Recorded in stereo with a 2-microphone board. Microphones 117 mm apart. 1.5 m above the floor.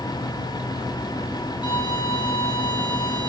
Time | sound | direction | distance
1.6 | a violin | 40° left (ahead or behind) | 2.5 m